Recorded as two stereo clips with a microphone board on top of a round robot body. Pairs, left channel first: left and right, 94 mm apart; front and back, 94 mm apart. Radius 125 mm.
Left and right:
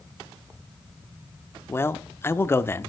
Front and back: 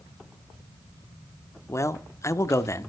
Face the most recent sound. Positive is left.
turn(degrees=40)